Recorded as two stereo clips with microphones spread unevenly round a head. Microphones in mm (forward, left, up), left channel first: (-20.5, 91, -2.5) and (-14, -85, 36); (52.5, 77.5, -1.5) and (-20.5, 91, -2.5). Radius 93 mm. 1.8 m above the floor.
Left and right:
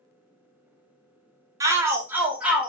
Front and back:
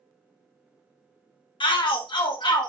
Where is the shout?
20° right, 0.9 m; by 2.7 s 5° right, 1.3 m.